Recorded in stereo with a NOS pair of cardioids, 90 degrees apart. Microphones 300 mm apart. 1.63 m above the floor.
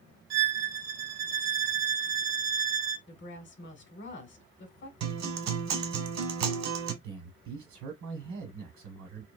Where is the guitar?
65° right, 1.1 m.